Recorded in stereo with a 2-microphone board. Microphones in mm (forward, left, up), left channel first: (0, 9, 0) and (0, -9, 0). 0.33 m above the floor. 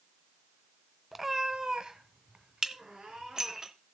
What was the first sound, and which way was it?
A cat meowing, 10° right (ahead or behind).